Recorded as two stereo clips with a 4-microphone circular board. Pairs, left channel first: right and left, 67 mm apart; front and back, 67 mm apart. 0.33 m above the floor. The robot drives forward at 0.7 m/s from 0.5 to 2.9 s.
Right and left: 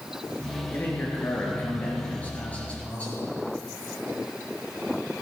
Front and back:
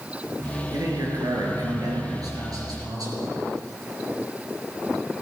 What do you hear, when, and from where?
0.7 s a man speaking: 150° right, 5 m; by 3.3 s 160° right, 6 m